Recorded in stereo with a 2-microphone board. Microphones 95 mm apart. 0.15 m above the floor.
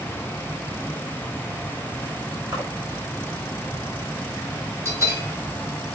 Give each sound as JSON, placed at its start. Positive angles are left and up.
{"t": 2.5, "sound": "a splash", "side_deg": -30, "distance_m": 5.5}
{"t": 4.8, "sound": "a bell", "side_deg": -30, "distance_m": 2.5}